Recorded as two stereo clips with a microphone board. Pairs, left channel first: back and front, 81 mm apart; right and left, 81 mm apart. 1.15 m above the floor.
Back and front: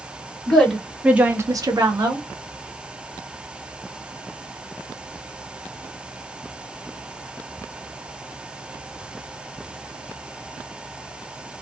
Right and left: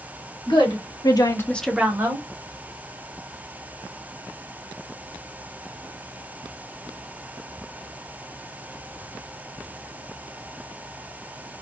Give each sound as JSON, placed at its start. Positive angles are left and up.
{"t": 0.5, "sound": "a woman speaking", "azimuth_deg": -100, "distance_m": 1.5}